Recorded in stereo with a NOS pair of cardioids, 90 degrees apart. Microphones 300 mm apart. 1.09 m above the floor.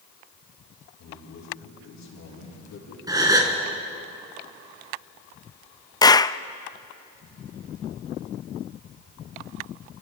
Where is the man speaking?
65° left, 9 m.